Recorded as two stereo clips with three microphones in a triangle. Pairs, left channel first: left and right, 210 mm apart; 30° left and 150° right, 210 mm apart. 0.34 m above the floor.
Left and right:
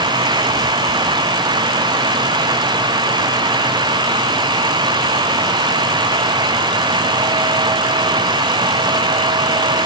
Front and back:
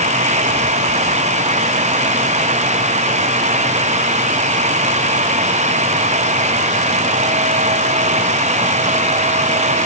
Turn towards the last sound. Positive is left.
No sound to turn to.